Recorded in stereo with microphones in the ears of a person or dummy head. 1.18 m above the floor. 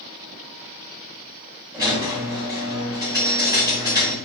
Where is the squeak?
15° right (ahead or behind), 1.2 m.